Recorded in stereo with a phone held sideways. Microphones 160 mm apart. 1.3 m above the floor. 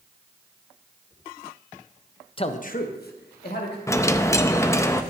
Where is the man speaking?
35° left (ahead or behind), 0.8 m; by 3.8 s 85° left, 2.5 m.